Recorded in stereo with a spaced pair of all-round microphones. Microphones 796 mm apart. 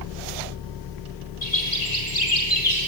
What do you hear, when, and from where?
1.4 s a bird: 65° left (ahead or behind), 7 m